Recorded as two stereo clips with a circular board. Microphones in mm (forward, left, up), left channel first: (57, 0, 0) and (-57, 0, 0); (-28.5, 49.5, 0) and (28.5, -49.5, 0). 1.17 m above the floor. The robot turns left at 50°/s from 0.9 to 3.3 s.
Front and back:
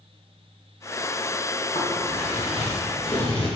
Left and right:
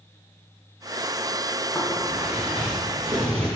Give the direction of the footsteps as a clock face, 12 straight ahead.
11 o'clock.